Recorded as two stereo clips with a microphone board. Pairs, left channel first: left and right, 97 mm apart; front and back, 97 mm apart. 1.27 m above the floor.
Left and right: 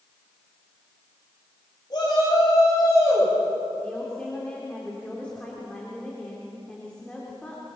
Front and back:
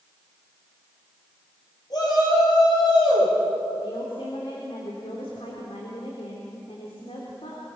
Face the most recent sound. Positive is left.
turn(degrees=10)